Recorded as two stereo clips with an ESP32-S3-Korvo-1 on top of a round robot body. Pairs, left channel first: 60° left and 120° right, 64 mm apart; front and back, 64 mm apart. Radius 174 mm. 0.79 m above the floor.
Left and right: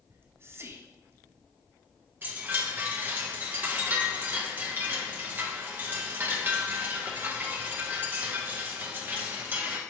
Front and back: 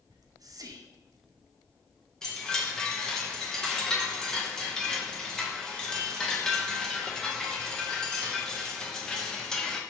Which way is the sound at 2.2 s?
75° right.